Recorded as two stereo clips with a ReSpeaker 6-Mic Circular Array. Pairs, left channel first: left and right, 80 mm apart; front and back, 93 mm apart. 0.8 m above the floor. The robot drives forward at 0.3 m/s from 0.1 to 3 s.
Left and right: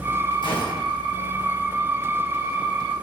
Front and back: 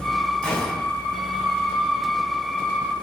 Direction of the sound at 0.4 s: 80° left.